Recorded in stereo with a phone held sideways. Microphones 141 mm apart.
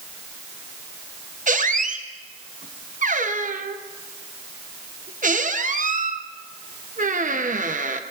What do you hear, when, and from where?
1.5 s a squeak: 70° right (ahead or behind), 0.7 m